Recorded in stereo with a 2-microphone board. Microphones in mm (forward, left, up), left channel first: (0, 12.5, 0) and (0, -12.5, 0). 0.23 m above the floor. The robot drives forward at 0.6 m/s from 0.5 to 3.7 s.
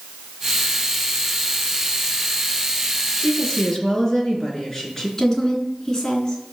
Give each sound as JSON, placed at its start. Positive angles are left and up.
{"t": 3.2, "sound": "a woman speaking", "side_deg": 10, "distance_m": 3.5}
{"t": 5.2, "sound": "a woman speaking", "side_deg": 20, "distance_m": 3.5}